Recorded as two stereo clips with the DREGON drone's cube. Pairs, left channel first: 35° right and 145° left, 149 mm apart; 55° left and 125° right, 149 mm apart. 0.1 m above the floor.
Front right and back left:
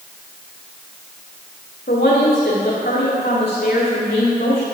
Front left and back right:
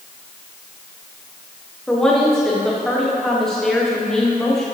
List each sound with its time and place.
1.9 s a woman speaking: 30° right, 4.5 m